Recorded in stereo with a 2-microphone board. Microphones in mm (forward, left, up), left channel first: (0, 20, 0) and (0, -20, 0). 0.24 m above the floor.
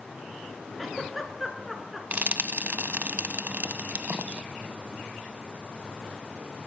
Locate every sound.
0.8 s a giggle: centre (ahead or behind), 2.0 m
2.1 s frying: 45° right (ahead or behind), 0.6 m